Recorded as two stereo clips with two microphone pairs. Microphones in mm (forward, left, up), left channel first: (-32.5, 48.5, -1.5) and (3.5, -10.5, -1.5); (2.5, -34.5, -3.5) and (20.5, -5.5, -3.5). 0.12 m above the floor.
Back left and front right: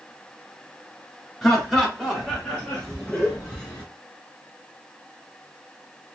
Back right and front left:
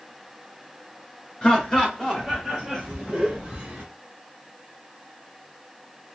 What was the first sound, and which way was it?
Laughter, 150° right.